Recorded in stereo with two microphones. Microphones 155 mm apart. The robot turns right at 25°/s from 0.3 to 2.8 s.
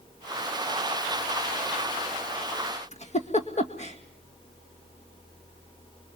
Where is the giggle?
45° left (ahead or behind), 2 m.